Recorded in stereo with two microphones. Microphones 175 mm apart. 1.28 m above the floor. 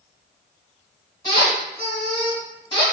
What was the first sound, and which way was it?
A squeak, 25° left (ahead or behind).